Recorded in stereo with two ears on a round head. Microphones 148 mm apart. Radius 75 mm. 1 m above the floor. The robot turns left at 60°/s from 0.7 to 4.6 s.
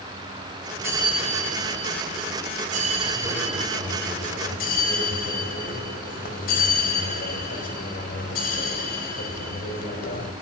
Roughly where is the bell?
Ahead.